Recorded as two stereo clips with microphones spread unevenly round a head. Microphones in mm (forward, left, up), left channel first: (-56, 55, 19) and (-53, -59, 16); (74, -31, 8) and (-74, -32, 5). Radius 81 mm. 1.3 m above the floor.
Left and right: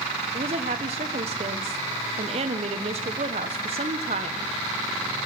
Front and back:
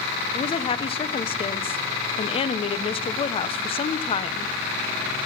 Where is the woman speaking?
50° right, 0.7 m.